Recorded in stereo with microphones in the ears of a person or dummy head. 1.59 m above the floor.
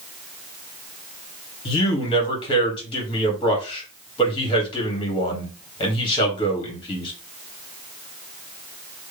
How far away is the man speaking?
About 1.7 m.